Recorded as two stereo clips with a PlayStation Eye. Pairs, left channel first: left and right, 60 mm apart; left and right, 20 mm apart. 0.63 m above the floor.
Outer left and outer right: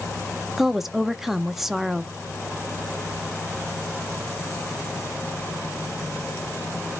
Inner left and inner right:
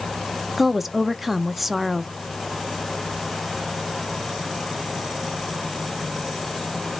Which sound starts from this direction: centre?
A woman speaking, at 0.6 s.